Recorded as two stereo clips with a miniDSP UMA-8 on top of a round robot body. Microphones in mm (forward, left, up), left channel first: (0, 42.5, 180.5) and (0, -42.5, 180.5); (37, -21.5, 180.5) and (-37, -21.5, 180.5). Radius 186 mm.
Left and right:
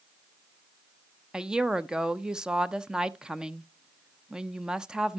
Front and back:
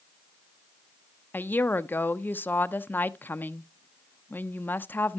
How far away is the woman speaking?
About 0.8 m.